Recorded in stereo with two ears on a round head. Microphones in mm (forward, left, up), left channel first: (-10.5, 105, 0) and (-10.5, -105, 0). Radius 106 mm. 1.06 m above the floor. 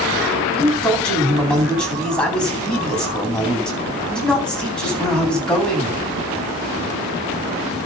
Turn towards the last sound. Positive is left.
turn(degrees=5)  # may be behind; listen again after turning